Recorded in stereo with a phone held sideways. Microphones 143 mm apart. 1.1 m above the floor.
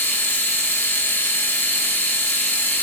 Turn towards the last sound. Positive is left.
turn(degrees=15)  # may be behind; listen again after turning